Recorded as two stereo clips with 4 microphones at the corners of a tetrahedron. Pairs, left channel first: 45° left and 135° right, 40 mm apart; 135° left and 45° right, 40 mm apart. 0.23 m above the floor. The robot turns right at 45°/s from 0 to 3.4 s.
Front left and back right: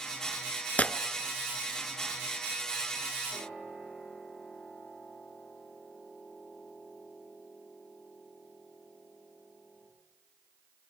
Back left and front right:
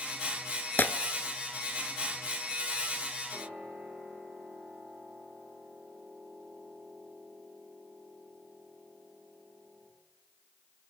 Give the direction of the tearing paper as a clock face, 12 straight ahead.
9 o'clock.